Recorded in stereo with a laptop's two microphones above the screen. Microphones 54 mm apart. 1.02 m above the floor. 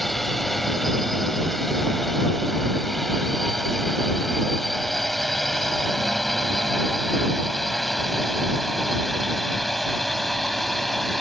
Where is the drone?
5° left (ahead or behind).